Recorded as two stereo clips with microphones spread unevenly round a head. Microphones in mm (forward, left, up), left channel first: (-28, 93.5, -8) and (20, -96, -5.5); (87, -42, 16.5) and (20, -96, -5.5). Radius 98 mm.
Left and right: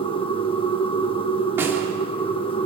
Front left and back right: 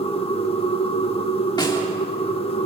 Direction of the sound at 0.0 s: 40° left.